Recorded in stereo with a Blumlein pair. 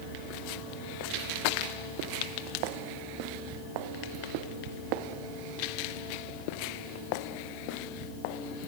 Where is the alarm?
I don't hear an alarm.